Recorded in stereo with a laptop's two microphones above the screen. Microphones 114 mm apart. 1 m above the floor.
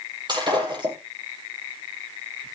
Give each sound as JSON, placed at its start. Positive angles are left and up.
{"t": 0.3, "sound": "breaking glass", "side_deg": -40, "distance_m": 9.5}